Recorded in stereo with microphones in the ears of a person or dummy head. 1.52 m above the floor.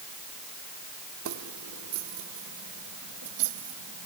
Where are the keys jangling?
70° right (ahead or behind); by 4.1 s 85° right.